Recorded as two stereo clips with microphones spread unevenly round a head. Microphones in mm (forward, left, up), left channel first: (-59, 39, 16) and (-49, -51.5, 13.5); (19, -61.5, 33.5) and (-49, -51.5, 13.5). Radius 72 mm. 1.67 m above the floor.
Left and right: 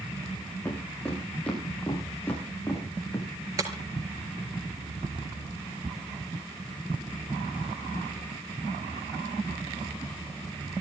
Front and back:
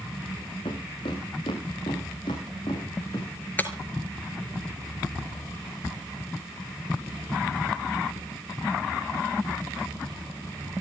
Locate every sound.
0.7 s footsteps: 15° left, 8.5 m; by 3.3 s 25° left, 8 m
3.6 s breaking glass: 30° right, 2 m